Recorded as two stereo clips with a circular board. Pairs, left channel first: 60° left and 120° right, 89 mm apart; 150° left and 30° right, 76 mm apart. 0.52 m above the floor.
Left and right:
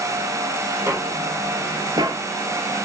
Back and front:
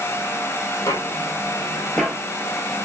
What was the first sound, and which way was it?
Footsteps, 175° right.